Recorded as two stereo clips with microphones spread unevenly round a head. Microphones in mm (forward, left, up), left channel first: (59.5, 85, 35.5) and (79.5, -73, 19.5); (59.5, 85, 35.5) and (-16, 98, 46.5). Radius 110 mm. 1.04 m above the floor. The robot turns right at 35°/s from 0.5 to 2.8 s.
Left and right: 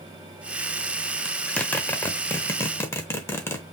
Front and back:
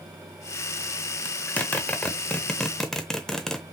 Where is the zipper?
40° left, 0.8 m; by 3.6 s 90° left, 0.8 m.